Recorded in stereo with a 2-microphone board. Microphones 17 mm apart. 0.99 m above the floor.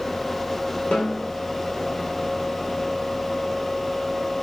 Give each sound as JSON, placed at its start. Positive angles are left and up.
{"t": 0.9, "sound": "a snare drum", "side_deg": 75, "distance_m": 8.0}